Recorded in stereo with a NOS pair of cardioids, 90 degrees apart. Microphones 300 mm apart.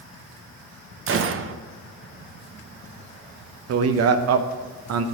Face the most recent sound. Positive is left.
turn(degrees=-55)